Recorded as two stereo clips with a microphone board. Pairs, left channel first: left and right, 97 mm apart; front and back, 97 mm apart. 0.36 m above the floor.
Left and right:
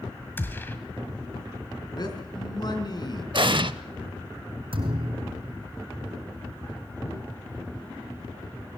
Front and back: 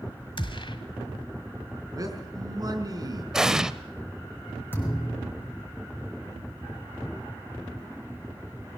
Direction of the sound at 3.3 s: 100° right.